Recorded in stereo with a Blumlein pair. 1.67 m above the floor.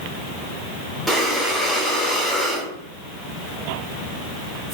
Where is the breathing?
5° right, 1.3 m.